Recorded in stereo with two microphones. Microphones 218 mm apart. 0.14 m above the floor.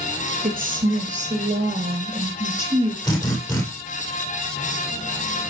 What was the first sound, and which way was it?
A woman speaking, 40° right (ahead or behind).